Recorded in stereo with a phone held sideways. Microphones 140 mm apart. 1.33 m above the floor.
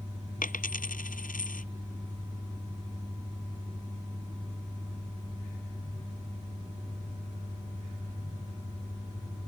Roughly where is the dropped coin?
Left.